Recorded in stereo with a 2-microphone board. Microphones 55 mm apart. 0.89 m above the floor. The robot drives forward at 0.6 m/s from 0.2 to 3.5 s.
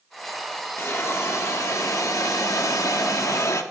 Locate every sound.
0.8 s a hiss: 50° left (ahead or behind), 1.7 m; by 3.6 s 65° left (ahead or behind), 1.4 m